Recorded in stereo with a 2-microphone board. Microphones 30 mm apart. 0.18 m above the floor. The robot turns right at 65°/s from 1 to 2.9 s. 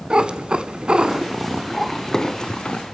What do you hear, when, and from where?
0.1 s a cat meowing: 45° right, 0.7 m; by 2.8 s 70° left, 0.7 m